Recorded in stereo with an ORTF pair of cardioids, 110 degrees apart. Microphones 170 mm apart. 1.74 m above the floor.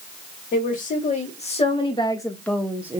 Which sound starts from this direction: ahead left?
A woman speaking, at 0.5 s.